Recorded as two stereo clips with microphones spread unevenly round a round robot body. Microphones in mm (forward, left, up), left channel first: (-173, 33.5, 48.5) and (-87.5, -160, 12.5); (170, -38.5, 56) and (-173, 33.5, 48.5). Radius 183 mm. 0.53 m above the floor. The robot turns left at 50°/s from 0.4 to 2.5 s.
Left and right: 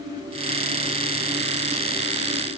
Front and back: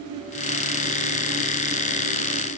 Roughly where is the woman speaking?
No woman speaking in this recording.